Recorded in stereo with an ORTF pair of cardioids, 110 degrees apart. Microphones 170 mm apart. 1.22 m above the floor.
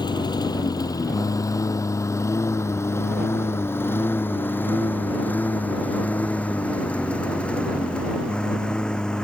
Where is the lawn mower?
25° left; by 9.2 s 5° left.